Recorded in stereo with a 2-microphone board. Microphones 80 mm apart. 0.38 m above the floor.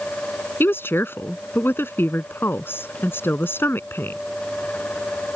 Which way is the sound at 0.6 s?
30° left (ahead or behind).